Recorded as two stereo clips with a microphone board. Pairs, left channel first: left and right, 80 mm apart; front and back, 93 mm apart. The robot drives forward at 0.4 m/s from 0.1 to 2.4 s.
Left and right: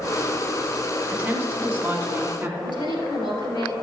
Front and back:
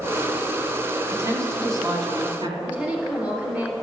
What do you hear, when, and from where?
1.1 s a woman speaking: 145° right, 1.9 m; by 2.5 s 155° right, 2 m
2.6 s a woman speaking: 105° left, 3 m